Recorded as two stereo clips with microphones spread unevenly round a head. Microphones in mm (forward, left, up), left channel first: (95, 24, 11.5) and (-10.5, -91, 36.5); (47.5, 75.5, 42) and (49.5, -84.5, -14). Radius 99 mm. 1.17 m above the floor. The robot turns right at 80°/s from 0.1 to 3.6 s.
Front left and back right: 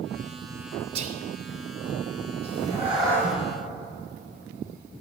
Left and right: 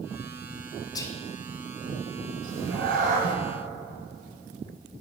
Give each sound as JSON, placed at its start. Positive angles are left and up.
{"t": 0.9, "sound": "whispering", "azimuth_deg": 165, "distance_m": 0.5}
{"t": 2.4, "sound": "a cat meowing", "azimuth_deg": -90, "distance_m": 2.5}